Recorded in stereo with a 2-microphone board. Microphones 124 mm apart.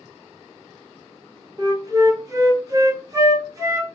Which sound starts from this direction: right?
A flute, at 1.6 s.